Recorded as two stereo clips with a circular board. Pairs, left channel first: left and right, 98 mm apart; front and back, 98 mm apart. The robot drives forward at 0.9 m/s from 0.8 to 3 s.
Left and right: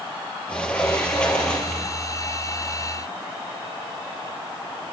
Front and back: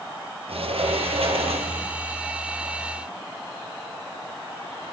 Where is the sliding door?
170° left, 4.5 m.